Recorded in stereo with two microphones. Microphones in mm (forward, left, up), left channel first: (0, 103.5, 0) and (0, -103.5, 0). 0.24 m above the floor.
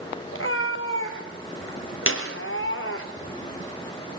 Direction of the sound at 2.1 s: 80° left.